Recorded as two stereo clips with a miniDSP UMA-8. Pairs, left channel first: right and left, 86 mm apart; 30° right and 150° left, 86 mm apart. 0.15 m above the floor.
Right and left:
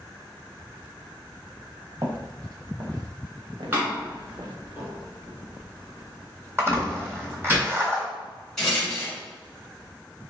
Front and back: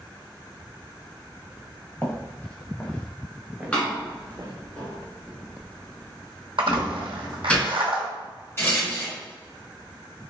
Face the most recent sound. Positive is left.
turn(degrees=-10)